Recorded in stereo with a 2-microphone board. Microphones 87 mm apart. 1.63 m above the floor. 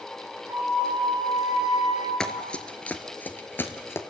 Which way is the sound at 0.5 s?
50° right (ahead or behind).